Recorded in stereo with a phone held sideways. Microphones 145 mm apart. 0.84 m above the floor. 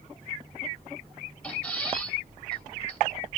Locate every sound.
1.4 s a squeak: 10° left (ahead or behind), 3 m